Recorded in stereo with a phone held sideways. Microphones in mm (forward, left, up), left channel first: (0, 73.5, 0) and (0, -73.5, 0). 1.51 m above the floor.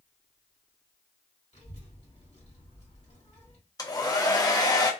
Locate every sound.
1.5 s a child speaking: 45° left (ahead or behind), 1.5 m
3.8 s a hair dryer: 25° left (ahead or behind), 0.6 m